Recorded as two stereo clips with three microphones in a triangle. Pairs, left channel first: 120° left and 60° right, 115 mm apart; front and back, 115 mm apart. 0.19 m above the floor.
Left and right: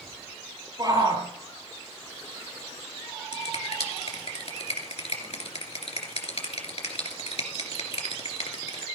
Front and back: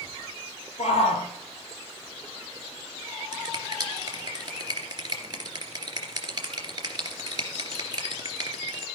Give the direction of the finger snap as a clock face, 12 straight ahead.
8 o'clock.